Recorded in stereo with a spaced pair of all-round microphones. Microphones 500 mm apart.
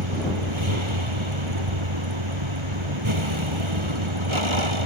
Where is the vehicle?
70° right (ahead or behind).